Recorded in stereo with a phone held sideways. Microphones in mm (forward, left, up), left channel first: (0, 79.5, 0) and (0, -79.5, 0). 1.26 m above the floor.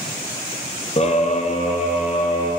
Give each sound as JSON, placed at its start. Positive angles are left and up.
{"t": 1.0, "sound": "a scream", "side_deg": 40, "distance_m": 0.6}